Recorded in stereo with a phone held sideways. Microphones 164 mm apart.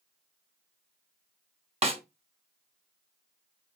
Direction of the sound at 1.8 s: 35° right (ahead or behind).